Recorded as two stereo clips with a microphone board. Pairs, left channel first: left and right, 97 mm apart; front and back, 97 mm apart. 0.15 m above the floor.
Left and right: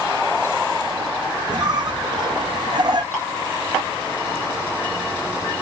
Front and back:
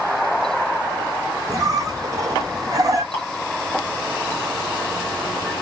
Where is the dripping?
15° right, 1.5 m.